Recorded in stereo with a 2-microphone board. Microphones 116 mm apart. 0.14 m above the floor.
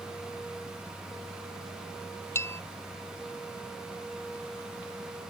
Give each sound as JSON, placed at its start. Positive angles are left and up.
{"t": 2.4, "sound": "a bell", "side_deg": 20}